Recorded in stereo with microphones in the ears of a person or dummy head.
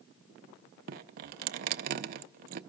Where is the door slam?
I don't hear a door slam.